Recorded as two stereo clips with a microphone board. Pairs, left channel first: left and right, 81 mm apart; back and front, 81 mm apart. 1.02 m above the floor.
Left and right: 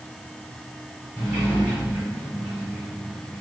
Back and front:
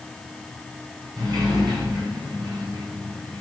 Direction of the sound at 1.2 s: 20° right.